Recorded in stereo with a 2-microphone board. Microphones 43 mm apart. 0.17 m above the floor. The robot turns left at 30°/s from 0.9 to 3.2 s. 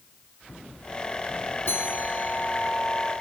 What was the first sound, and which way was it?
A bell, 70° left.